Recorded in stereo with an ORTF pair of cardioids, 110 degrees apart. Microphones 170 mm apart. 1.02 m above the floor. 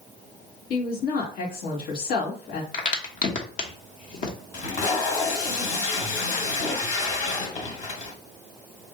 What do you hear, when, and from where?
0.7 s a woman speaking: 65° left, 2 m
2.7 s a crack: 50° left, 1.2 m
4.5 s tape being pulled: 50° left, 1.8 m